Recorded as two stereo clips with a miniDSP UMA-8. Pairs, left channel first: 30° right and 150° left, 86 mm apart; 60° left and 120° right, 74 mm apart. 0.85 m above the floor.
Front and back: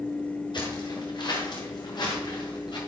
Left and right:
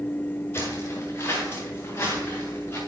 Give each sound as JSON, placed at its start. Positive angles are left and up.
{"t": 0.5, "sound": "footsteps", "azimuth_deg": 5, "distance_m": 7.5}